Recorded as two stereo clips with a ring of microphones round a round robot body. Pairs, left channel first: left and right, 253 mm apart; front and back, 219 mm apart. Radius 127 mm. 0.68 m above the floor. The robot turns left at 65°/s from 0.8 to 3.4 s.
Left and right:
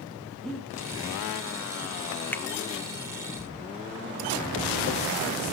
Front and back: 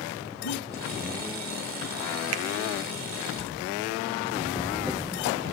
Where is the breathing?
Straight ahead, 4 m.